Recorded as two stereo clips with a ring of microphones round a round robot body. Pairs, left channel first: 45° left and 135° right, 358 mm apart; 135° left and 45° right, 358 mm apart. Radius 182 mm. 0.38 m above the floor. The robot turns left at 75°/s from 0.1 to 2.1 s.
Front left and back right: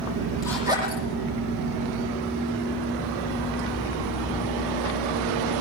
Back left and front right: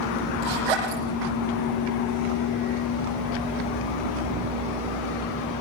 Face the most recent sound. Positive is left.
turn(degrees=-160)